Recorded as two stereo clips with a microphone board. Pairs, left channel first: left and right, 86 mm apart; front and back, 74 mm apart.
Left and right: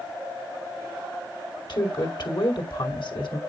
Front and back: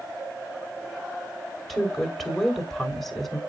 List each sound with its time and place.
1.7 s a woman speaking: 85° left, 2.5 m